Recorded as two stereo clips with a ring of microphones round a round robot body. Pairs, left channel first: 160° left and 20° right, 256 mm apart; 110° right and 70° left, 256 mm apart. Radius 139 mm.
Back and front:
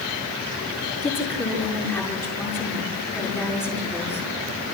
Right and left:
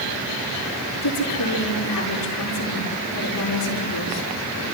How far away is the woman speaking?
About 6 m.